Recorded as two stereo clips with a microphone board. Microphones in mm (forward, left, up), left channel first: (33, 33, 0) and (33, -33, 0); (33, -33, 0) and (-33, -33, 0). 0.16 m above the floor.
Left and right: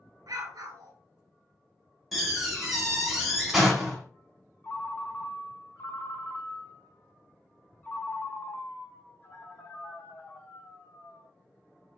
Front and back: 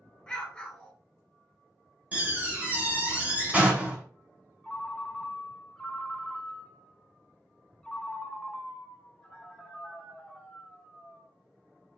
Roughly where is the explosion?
Right.